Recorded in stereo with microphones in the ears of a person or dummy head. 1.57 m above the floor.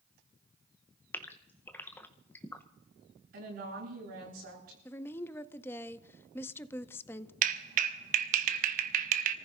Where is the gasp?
15° left (ahead or behind), 0.8 m.